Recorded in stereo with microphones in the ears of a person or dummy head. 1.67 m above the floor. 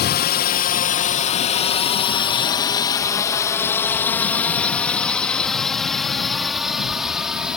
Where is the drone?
50° left (ahead or behind); by 7.6 s 5° right (ahead or behind).